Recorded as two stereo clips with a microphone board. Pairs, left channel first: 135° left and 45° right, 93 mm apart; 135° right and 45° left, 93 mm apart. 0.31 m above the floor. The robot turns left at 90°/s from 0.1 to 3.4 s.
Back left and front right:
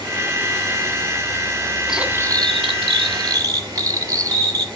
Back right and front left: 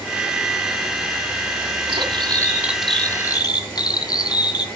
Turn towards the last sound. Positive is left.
turn(degrees=-95)